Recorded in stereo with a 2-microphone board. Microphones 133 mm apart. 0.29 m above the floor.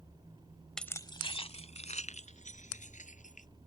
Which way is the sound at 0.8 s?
5° left (ahead or behind).